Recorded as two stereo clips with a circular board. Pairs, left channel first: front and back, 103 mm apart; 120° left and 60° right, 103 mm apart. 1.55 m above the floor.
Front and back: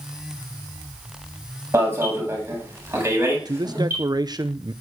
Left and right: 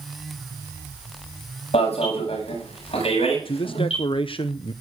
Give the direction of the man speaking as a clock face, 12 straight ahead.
7 o'clock.